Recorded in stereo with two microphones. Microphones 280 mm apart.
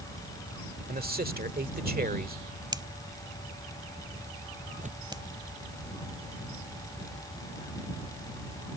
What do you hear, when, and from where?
0.9 s a man speaking: 35° right (ahead or behind)
2.7 s a finger snap: 15° right (ahead or behind)
4.7 s tearing paper: 25° right (ahead or behind)